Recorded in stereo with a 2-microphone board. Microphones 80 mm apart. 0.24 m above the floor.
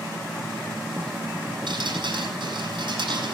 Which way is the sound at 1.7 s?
80° right.